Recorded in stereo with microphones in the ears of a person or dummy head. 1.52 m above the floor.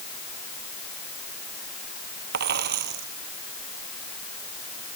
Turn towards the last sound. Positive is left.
turn(degrees=-50)  # may be behind; listen again after turning